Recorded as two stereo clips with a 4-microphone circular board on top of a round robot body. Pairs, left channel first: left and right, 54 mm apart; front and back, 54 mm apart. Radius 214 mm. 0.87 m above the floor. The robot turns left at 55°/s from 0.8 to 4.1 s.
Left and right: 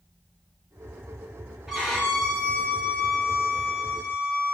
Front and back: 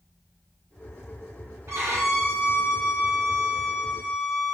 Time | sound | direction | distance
1.7 | a violin | 170° right | 1.3 m